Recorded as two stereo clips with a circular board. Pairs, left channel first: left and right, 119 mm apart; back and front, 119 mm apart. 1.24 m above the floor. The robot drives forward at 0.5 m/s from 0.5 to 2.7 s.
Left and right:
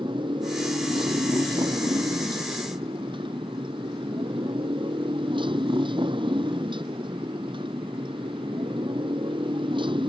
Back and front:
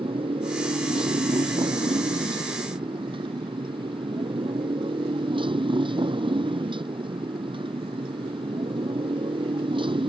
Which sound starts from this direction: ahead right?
A motorcycle, at 0.0 s.